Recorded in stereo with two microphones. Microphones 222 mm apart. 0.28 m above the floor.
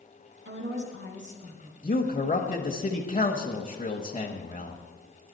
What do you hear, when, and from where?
0.5 s a woman speaking: 60° right (ahead or behind), 3 m
1.8 s a man speaking: 35° left (ahead or behind), 1.1 m